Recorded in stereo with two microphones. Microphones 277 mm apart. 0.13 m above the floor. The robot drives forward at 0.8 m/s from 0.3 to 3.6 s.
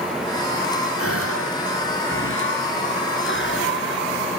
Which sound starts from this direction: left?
A gasp, at 1.0 s.